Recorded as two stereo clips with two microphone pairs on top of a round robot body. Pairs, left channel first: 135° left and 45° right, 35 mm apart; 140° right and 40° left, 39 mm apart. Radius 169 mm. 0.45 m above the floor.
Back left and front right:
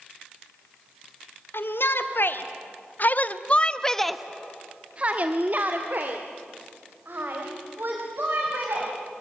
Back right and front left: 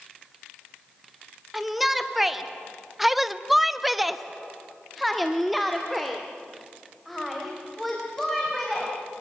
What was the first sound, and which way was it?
A shout, 125° left.